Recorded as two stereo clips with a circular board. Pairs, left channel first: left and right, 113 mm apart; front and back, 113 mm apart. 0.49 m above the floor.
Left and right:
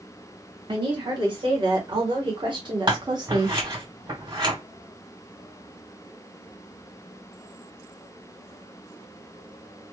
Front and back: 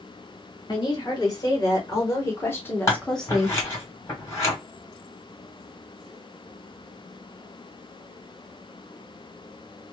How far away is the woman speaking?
About 1.9 m.